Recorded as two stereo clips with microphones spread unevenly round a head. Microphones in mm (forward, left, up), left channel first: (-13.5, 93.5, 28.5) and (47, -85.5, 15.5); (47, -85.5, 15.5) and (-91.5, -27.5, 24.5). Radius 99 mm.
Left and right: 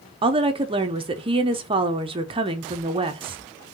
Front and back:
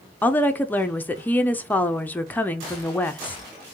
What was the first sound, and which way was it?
A woman speaking, 85° right.